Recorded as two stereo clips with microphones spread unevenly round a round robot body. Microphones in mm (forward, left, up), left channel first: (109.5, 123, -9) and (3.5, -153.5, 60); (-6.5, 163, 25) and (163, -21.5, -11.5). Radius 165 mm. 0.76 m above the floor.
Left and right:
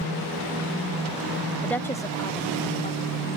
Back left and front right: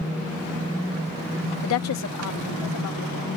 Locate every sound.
1.6 s a woman speaking: 140° left